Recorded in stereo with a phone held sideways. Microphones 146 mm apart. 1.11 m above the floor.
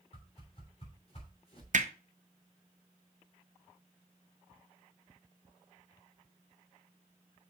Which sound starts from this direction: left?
A whoosh, at 0.1 s.